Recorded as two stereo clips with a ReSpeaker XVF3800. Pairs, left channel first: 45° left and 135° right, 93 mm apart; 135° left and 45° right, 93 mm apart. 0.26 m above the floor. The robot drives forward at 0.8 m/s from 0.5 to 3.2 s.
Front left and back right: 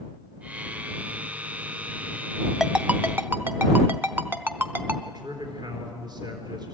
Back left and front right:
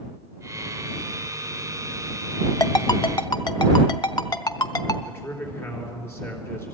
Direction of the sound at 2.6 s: 140° left.